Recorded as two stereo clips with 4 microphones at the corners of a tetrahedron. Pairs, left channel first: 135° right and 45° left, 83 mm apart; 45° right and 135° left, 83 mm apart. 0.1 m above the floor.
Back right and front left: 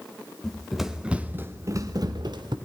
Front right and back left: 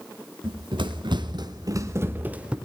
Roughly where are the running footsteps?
Behind left.